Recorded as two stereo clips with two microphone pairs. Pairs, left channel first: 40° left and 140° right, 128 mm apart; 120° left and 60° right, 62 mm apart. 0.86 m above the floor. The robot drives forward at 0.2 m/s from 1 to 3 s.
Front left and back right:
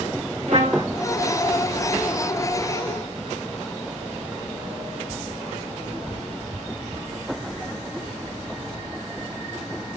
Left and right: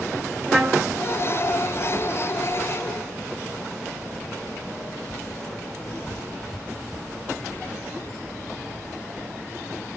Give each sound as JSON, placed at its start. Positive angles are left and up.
{"t": 0.5, "sound": "a trumpet", "azimuth_deg": -160, "distance_m": 0.8}